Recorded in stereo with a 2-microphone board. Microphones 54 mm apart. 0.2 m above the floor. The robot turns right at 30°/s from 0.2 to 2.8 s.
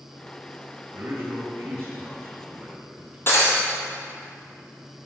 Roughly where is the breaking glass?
Left.